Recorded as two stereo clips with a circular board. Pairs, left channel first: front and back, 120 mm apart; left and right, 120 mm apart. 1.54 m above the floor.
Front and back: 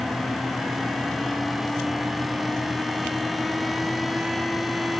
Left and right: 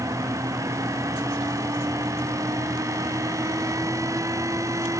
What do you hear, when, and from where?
Only background noise.